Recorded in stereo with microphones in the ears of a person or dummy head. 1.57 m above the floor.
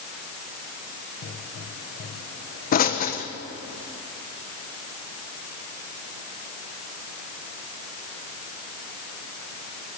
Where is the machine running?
I don't hear a machine running.